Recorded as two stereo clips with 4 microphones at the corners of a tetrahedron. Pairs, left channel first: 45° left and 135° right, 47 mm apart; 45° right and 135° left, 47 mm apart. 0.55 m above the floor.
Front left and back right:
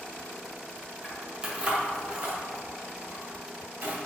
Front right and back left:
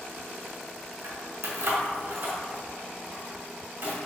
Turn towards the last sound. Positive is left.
turn(degrees=180)